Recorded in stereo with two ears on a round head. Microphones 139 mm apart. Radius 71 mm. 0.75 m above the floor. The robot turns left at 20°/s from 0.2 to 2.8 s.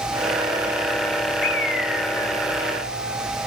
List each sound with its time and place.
1.4 s a bird: 65° left (ahead or behind), 2.5 m; by 3.5 s 80° left, 2.5 m